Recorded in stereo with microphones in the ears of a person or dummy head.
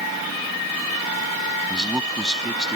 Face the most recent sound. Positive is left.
turn(degrees=0)  # may be behind; listen again after turning